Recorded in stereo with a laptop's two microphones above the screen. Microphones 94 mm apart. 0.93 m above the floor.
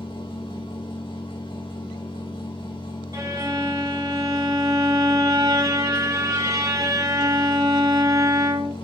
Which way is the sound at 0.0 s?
60° left (ahead or behind).